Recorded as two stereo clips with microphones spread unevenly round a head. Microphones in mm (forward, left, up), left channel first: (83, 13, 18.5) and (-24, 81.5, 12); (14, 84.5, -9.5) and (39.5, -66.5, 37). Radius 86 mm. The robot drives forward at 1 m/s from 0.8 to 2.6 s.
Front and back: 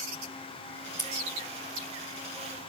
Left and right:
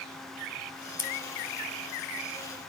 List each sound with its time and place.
1.0 s scissors: 25° left, 4.5 m